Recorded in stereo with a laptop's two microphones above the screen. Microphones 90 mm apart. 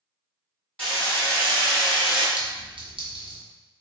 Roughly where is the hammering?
Centre.